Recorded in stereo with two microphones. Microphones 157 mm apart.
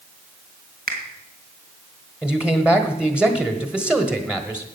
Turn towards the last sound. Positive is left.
turn(degrees=-5)  # may be behind; listen again after turning